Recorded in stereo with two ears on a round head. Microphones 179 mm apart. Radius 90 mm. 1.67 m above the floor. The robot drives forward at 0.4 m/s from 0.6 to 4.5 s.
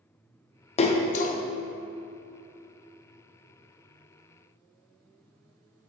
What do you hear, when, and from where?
0.8 s a splash: 30° left (ahead or behind), 0.6 m; by 1.4 s 40° left (ahead or behind), 0.5 m